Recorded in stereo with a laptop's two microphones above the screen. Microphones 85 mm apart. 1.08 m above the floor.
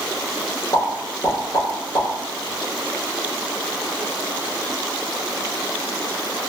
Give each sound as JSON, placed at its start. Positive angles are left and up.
{"t": 0.7, "sound": "a pop", "side_deg": 45, "distance_m": 1.0}